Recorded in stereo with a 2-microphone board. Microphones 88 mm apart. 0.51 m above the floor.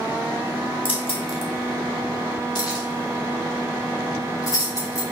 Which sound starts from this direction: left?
Keys jangling, at 0.8 s.